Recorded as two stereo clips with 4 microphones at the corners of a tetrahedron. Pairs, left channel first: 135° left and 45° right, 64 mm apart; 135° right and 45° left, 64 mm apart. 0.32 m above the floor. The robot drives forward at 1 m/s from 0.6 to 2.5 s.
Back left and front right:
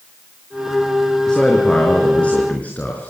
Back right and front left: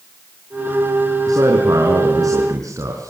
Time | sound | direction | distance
1.3 | a man speaking | 55° left | 4.5 m